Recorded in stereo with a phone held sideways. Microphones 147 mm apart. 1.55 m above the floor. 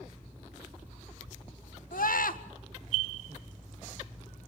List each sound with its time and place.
1.9 s a scream: 80° left, 1.7 m